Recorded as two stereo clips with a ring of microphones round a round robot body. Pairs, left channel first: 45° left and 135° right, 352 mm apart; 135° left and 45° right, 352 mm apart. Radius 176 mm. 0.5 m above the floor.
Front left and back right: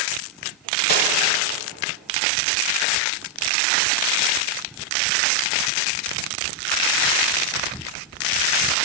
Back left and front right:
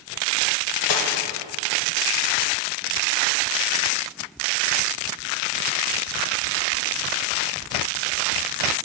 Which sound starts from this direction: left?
Cutlery clinking, at 0.9 s.